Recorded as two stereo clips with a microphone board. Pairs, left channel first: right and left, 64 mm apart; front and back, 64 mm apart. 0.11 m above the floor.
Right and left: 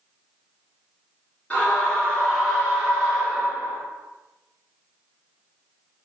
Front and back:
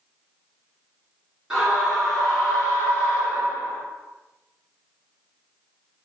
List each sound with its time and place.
1.5 s a scream: 120° right, 1.8 m; by 3.8 s 35° left, 2 m